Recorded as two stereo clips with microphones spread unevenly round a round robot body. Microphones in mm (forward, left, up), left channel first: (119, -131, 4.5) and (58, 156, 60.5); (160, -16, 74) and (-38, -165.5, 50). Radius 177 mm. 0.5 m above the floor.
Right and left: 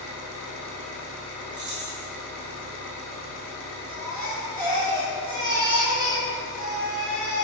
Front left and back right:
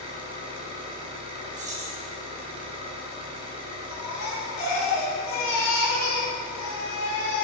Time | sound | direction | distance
0.0 | an engine running | 75° right | 3 m
1.5 | keys jangling | 165° left | 1.2 m
3.9 | a baby crying | 30° left | 3 m